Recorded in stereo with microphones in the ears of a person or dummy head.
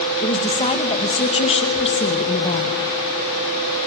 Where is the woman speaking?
30° left (ahead or behind), 2 m.